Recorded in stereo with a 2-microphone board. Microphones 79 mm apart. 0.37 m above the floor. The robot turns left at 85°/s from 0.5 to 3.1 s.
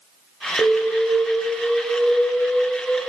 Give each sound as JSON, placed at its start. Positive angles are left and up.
{"t": 0.6, "sound": "an alarm", "azimuth_deg": -90, "distance_m": 1.2}